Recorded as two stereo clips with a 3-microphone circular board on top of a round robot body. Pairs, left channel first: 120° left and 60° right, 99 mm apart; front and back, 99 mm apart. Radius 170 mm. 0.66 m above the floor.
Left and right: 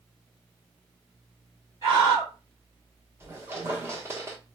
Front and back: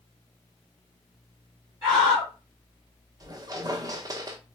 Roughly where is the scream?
Behind right.